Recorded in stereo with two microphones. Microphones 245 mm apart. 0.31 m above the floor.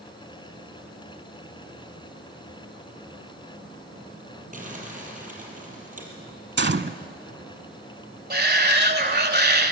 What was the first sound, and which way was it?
Crumpling, 35° right (ahead or behind).